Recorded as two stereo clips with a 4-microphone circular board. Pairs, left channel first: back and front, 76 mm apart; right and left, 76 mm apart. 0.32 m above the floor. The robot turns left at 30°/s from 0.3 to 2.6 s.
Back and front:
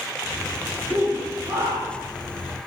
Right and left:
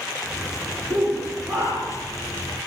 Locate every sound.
0.9 s a shout: 90° left, 7 m; by 2.1 s 55° left, 7 m